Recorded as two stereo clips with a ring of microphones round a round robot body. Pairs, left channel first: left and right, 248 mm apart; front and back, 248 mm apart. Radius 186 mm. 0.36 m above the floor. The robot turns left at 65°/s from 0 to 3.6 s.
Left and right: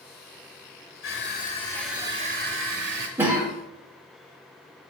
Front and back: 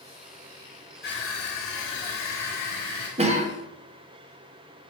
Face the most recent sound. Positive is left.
turn(degrees=175)